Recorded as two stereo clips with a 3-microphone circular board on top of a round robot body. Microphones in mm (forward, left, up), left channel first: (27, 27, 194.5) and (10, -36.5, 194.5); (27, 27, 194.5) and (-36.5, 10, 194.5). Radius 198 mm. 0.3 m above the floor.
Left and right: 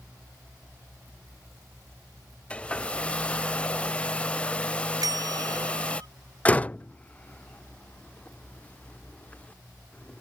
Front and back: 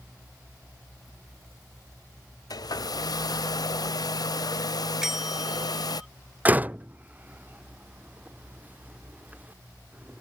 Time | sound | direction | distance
2.5 | a hair dryer | 5° left | ?
5.0 | a bell | 80° right | ?
6.5 | a door slam | 135° left | ?